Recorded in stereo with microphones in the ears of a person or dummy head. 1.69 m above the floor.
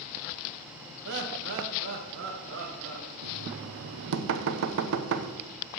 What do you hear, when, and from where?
1.1 s laughter: 60° right (ahead or behind), 1.7 m; by 3.1 s 70° right (ahead or behind), 2.5 m
3.2 s knocking: 70° right (ahead or behind), 0.9 m